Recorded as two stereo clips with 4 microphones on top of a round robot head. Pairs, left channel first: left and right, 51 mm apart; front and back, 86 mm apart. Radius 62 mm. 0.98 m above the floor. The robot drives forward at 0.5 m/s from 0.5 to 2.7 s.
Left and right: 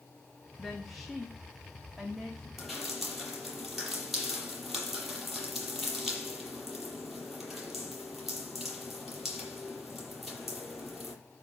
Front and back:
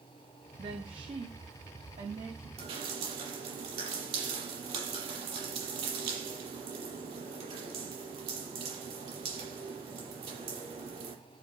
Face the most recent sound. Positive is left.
turn(degrees=180)